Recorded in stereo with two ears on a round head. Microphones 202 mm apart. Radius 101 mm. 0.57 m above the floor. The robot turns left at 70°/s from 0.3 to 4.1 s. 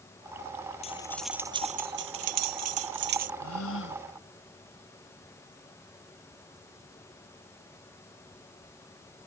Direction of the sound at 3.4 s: 85° left.